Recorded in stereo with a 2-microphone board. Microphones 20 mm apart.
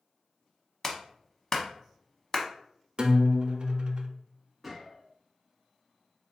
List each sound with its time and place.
0.8 s a clap: 15° left (ahead or behind), 0.8 m
3.0 s a guitar: 50° right (ahead or behind), 0.5 m
4.6 s a gunshot: 5° right (ahead or behind), 1.5 m